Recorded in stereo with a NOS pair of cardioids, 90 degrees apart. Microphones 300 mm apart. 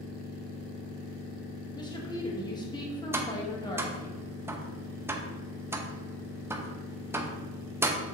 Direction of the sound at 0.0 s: 60° left.